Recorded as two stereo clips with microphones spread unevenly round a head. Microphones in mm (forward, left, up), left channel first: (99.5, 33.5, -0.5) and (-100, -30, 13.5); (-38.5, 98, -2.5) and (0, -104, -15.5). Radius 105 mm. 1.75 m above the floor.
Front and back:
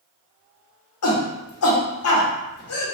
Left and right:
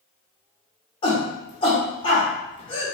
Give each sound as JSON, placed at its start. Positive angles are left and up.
{"t": 1.0, "sound": "a shout", "azimuth_deg": 35, "distance_m": 1.0}